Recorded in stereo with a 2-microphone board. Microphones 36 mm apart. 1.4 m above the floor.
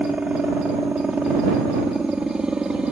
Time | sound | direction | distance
0.0 | a helicopter | 30° right (ahead or behind) | ?